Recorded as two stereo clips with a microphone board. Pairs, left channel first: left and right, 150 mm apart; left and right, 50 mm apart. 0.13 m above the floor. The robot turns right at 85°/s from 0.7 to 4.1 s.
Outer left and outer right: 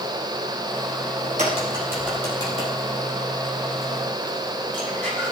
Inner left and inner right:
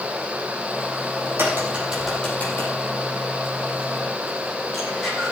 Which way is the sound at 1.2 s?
65° right (ahead or behind).